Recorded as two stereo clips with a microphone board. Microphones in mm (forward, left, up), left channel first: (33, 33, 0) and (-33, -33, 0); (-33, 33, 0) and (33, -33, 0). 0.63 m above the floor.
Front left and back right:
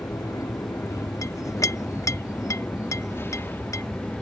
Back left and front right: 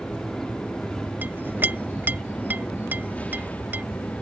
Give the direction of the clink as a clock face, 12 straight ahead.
12 o'clock.